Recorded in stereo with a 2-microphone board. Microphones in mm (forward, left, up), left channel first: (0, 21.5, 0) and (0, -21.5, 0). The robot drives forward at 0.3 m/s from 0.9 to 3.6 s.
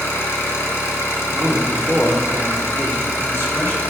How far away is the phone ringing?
I don't hear a phone ringing.